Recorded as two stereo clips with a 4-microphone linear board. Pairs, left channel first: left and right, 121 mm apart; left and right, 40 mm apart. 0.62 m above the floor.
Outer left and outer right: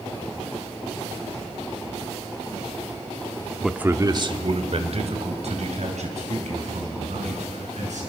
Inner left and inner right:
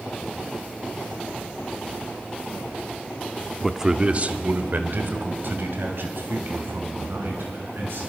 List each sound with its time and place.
3.6 s a man speaking: 5° left (ahead or behind), 0.9 m; by 8.0 s 75° right (ahead or behind), 6.5 m